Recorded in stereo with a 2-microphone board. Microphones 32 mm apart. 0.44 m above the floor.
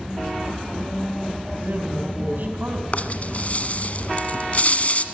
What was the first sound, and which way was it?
A man speaking, 60° right (ahead or behind).